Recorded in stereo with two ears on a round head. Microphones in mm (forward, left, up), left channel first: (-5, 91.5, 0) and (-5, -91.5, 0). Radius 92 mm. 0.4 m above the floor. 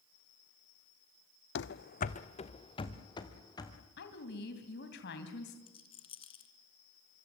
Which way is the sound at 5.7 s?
25° left (ahead or behind).